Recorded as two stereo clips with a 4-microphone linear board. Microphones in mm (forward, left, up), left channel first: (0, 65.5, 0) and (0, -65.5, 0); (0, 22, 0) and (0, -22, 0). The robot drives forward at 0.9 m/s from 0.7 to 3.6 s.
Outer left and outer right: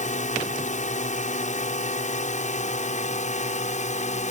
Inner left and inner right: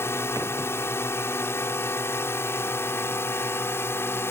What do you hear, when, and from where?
0.0 s a drone: 70° left (ahead or behind); by 4.3 s 65° left (ahead or behind)